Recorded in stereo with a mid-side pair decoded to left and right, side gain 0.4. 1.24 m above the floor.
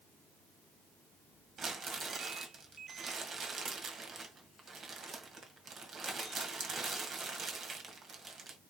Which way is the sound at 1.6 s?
50° right.